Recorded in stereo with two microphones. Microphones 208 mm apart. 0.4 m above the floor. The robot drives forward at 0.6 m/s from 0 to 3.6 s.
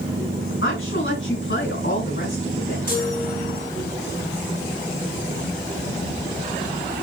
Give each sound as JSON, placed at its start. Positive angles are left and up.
{"t": 0.6, "sound": "a woman speaking", "side_deg": 70, "distance_m": 4.5}
{"t": 2.9, "sound": "a chime", "side_deg": 50, "distance_m": 3.0}